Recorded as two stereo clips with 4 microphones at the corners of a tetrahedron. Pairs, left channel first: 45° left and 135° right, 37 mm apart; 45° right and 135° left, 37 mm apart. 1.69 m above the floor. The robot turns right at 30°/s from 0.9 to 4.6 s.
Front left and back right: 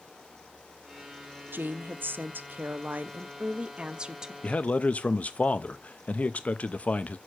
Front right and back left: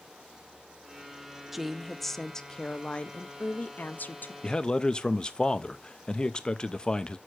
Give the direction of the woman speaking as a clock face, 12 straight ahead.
5 o'clock.